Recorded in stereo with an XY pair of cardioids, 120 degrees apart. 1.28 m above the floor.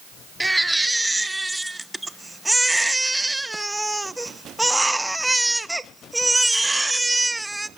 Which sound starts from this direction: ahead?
A baby crying, at 0.4 s.